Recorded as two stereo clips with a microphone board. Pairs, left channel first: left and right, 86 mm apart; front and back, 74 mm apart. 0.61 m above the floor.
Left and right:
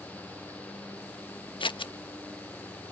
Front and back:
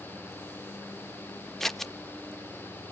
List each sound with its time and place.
1.6 s scissors: 85° left, 0.6 m